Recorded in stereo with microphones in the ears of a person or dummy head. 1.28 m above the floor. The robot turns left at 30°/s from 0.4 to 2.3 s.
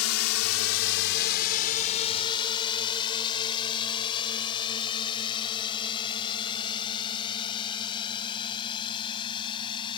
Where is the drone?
80° left; by 10.0 s 30° left (ahead or behind).